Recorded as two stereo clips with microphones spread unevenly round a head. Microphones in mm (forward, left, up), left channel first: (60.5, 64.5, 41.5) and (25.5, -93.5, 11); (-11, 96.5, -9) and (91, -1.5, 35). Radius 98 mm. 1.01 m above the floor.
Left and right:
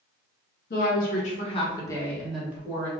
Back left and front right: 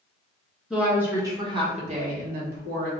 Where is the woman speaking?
50° left, 1.4 m; by 2.9 s 35° right, 1.4 m.